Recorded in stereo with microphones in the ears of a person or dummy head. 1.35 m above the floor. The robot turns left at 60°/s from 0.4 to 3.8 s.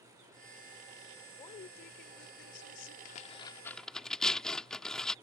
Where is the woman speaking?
155° left; by 3.0 s 65° left.